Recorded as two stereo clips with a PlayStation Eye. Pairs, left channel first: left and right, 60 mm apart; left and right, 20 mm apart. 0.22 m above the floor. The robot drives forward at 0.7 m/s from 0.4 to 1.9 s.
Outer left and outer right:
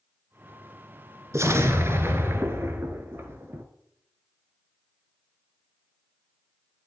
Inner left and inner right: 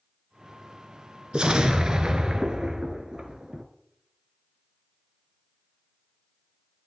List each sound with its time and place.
1.3 s an explosion: 50° right (ahead or behind), 1.5 m; by 3.6 s 40° right (ahead or behind), 1.7 m